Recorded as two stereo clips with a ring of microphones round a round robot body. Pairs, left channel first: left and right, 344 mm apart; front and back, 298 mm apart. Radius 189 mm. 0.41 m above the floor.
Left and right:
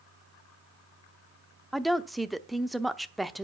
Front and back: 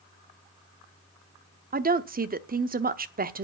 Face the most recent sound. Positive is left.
turn(degrees=180)